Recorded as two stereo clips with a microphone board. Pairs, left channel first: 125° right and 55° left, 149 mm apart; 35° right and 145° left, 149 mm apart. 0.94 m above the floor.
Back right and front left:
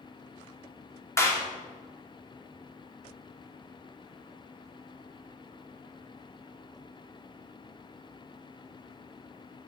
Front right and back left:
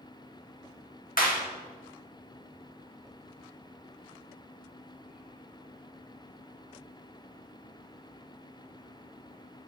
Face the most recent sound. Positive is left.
turn(degrees=-55)